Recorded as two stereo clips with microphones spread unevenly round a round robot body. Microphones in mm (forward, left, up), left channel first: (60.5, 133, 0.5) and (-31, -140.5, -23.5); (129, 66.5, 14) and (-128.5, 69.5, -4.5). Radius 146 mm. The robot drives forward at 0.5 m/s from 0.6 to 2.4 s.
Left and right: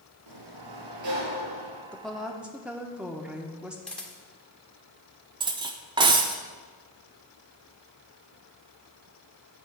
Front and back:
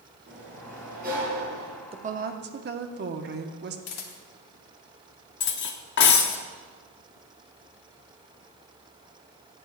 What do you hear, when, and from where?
0.3 s a sliding door: 115° right, 2.5 m; by 1.8 s 125° right, 2.5 m
1.9 s a woman speaking: 165° left, 0.6 m; by 3.8 s 170° left, 0.7 m
3.9 s a camera shutter: 20° right, 1.1 m
5.4 s cutlery clinking: 45° right, 0.5 m